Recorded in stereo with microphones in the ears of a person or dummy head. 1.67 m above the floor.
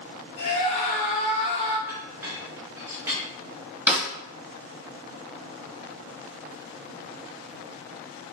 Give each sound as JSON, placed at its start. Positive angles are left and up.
{"t": 0.4, "sound": "a scream", "side_deg": 40, "distance_m": 2.0}
{"t": 1.9, "sound": "a clink", "side_deg": -15, "distance_m": 1.4}
{"t": 3.9, "sound": "a snare drum", "side_deg": -10, "distance_m": 1.2}